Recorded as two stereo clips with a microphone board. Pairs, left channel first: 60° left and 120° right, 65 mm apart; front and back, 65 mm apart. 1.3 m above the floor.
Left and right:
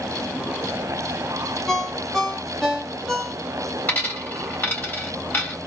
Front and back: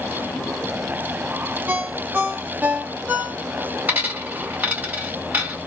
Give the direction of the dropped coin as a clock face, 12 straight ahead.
8 o'clock.